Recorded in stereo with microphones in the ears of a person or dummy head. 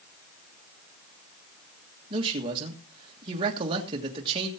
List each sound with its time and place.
2.1 s a man speaking: 30° right (ahead or behind), 1.7 m